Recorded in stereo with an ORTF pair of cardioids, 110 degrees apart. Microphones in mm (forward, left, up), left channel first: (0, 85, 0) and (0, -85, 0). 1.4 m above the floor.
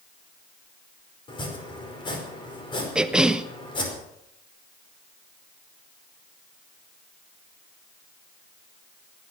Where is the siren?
No siren in this recording.